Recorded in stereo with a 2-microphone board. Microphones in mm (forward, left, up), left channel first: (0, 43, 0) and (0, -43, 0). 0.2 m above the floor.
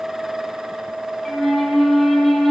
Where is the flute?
5° left (ahead or behind), 1.5 m.